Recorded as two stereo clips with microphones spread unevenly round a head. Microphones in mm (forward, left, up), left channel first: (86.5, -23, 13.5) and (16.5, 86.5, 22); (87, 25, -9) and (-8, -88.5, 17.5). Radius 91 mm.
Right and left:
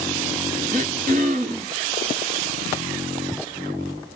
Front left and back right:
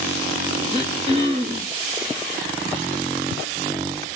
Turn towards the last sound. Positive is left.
turn(degrees=175)